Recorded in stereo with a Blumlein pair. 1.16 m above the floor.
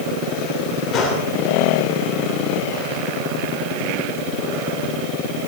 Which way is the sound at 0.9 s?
30° left.